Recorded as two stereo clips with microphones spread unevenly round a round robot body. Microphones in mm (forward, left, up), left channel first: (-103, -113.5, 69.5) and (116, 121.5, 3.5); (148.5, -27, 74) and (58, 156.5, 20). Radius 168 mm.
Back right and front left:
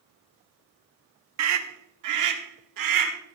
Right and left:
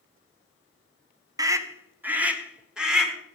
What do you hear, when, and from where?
1.4 s a scream: 55° left, 1.2 m; by 3.1 s 30° left, 2.5 m